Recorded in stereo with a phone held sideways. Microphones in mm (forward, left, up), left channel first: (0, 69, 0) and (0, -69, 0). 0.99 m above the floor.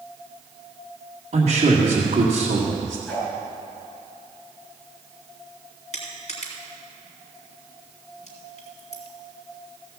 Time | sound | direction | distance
1.3 | a man speaking | 55° right (ahead or behind) | 2 m
3.1 | a whoosh | 10° left (ahead or behind) | 5 m
5.9 | crushing | 60° left (ahead or behind) | 3 m